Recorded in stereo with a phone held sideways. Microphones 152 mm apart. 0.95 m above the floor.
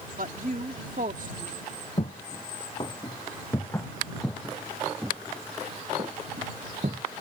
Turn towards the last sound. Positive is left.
turn(degrees=-55)  # may be behind; listen again after turning